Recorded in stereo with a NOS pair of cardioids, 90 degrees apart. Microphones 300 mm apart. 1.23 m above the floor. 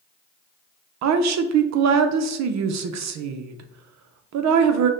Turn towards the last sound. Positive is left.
turn(degrees=-65)